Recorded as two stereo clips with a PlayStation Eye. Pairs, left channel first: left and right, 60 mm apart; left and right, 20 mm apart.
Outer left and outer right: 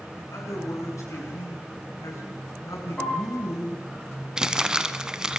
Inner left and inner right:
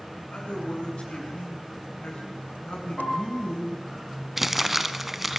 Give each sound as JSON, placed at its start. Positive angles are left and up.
{"t": 0.2, "sound": "a man speaking", "side_deg": 65, "distance_m": 7.5}
{"t": 3.0, "sound": "a piano", "side_deg": 15, "distance_m": 7.5}
{"t": 4.4, "sound": "crumpling", "side_deg": -15, "distance_m": 1.0}